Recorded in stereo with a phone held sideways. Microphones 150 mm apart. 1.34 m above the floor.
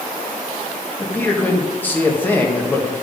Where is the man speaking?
10° left (ahead or behind), 1.7 m.